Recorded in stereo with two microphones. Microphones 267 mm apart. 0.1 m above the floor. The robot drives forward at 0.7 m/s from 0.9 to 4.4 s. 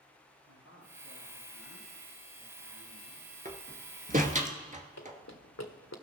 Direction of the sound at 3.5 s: 30° right (ahead or behind).